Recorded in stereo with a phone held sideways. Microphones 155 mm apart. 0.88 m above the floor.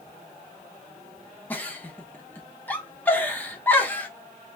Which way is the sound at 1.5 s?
10° left (ahead or behind).